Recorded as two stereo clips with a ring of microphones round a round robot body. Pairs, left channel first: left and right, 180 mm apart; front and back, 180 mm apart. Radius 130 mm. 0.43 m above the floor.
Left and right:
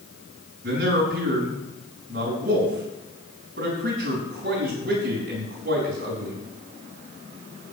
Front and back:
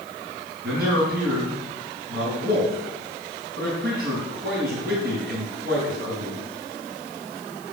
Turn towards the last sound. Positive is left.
turn(degrees=-135)